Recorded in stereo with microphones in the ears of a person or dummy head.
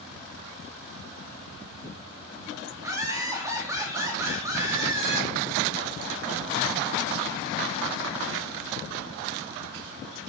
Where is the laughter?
10° right (ahead or behind), 3.5 m.